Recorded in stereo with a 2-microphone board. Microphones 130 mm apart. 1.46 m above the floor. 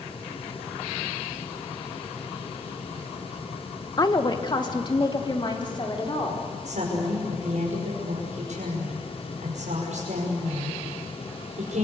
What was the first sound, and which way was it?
A woman speaking, 30° left (ahead or behind).